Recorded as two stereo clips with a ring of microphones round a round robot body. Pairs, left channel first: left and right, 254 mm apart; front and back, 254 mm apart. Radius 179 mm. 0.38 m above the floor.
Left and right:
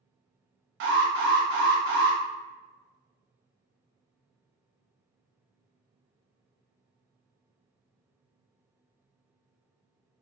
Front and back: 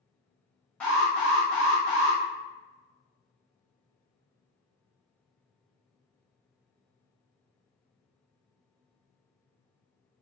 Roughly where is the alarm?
Right.